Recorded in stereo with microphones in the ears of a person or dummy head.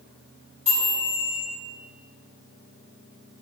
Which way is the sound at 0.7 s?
10° right (ahead or behind).